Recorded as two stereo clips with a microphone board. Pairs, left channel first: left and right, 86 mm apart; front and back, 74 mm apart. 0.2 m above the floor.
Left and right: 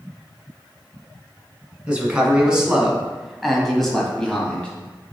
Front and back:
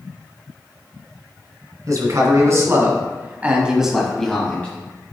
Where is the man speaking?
165° right, 2 m; by 4.7 s 30° left, 1.4 m.